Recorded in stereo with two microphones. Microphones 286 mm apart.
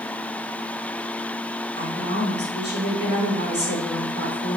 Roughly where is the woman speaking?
Right.